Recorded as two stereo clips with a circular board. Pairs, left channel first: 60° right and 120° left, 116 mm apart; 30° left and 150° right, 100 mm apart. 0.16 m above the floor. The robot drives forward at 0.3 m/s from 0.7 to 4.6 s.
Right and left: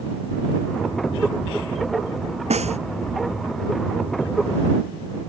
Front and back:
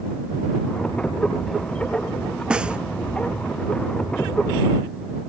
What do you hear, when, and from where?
2.5 s a snare drum: 130° left